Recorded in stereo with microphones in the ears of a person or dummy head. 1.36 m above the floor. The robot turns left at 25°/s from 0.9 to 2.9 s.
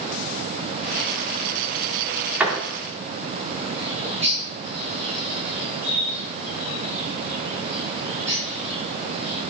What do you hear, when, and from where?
2.4 s a door slam: 10° right (ahead or behind), 2.5 m; by 2.6 s 15° right (ahead or behind), 2.5 m
3.8 s a bird: 35° right (ahead or behind), 5 m